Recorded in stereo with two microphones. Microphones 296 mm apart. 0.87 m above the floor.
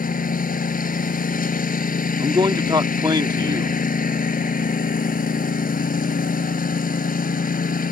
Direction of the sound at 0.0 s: 30° left (ahead or behind).